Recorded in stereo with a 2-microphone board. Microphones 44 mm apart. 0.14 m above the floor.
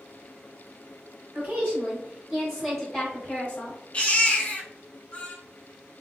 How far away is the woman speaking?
About 2.0 m.